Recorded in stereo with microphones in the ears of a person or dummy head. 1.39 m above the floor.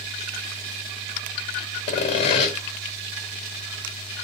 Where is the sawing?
30° left (ahead or behind), 1.7 m.